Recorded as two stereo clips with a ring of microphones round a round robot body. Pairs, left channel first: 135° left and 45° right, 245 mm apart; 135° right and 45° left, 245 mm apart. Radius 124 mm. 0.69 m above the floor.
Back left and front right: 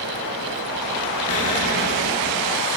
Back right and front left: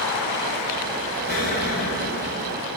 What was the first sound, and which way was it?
An explosion, 170° left.